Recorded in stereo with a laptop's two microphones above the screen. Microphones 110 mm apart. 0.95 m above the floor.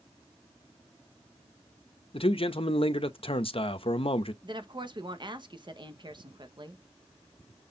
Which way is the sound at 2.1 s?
55° left (ahead or behind).